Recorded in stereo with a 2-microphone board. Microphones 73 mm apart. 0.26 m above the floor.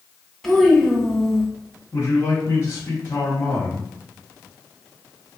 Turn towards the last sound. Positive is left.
turn(degrees=35)  # may be behind; listen again after turning